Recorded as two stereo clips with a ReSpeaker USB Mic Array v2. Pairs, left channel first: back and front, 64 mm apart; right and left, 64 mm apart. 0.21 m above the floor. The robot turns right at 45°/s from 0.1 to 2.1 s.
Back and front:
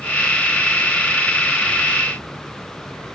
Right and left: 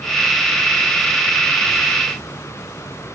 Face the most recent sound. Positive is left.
No sound to turn to.